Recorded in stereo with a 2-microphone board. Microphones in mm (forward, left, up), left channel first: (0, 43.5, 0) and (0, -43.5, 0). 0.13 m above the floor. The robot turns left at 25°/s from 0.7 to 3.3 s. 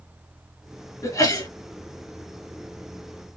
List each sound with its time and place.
1.0 s a sneeze: 40° left (ahead or behind), 2 m